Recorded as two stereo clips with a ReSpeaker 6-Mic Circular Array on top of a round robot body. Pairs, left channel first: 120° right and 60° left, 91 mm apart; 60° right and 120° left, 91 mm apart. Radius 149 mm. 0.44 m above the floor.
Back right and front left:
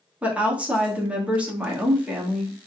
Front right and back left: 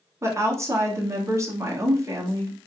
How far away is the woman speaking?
About 1.2 m.